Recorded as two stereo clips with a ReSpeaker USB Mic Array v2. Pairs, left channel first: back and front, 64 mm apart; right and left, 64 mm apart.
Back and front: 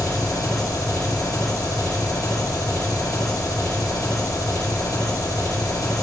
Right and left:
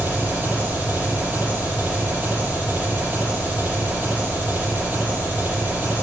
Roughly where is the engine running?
Behind left.